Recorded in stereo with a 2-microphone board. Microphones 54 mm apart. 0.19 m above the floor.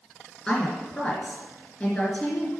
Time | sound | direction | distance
0.5 | a woman speaking | 20° left (ahead or behind) | 3 m